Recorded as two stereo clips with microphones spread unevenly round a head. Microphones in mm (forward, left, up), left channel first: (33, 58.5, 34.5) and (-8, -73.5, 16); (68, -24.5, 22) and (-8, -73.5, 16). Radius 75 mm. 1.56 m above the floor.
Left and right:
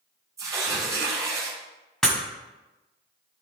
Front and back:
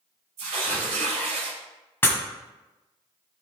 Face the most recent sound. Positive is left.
turn(degrees=5)